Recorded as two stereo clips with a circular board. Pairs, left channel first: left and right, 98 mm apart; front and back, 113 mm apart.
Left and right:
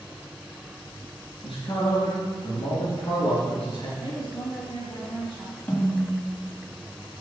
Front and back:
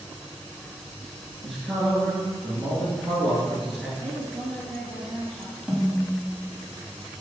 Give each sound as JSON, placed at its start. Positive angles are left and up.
{"t": 1.4, "sound": "a man speaking", "azimuth_deg": 90, "distance_m": 3.0}
{"t": 4.0, "sound": "a woman speaking", "azimuth_deg": 75, "distance_m": 3.0}
{"t": 5.7, "sound": "a snare drum", "azimuth_deg": 100, "distance_m": 1.5}